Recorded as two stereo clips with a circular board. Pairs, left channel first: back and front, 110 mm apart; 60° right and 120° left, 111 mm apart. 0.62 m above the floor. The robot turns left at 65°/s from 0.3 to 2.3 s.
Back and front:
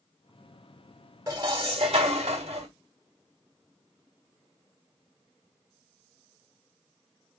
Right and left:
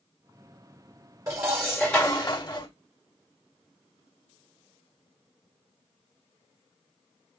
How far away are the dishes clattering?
About 1.4 m.